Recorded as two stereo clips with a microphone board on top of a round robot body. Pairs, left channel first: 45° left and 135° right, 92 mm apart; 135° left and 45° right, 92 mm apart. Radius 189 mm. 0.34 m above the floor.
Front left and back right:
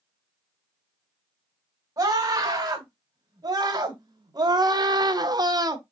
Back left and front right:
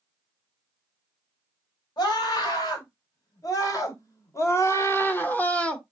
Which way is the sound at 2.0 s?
175° left.